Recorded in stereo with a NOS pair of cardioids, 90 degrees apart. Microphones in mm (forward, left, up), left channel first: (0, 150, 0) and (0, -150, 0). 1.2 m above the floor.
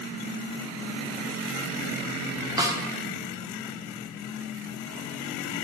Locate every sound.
2.6 s a snare drum: 10° right, 1.1 m